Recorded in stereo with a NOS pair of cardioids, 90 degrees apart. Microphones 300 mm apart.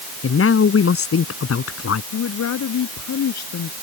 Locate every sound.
0.2 s a man speaking: 45° left; by 2.0 s 50° left
2.1 s a woman speaking: 60° left